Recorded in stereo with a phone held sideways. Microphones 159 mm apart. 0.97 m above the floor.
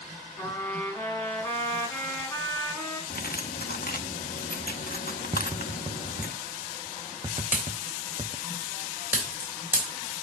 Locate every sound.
0.4 s a trumpet: 10° left (ahead or behind), 5.5 m
3.1 s cutlery clinking: 65° left (ahead or behind), 0.8 m
5.3 s tapping: 30° right (ahead or behind), 0.5 m
7.4 s a pop: 10° right (ahead or behind), 3.5 m